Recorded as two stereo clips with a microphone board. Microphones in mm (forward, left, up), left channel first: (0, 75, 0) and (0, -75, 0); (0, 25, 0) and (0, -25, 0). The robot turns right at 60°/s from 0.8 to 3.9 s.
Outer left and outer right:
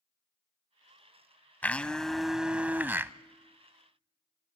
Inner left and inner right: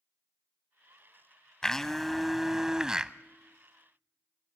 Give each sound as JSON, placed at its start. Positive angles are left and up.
{"t": 1.6, "sound": "a blender", "side_deg": 10, "distance_m": 0.6}